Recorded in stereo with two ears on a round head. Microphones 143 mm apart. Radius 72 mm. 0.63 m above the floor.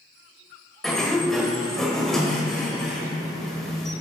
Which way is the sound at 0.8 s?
5° left (ahead or behind).